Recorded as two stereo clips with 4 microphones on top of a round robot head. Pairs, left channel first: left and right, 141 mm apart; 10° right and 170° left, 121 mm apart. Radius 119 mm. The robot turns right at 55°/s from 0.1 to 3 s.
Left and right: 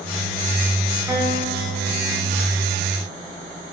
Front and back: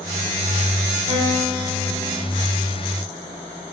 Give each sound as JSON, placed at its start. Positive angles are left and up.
{"t": 1.1, "sound": "a guitar", "azimuth_deg": -165, "distance_m": 3.5}